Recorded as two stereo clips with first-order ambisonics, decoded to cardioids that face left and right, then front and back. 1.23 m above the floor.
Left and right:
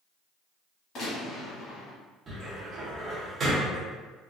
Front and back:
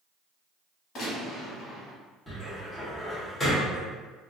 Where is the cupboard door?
65° right, 0.8 m.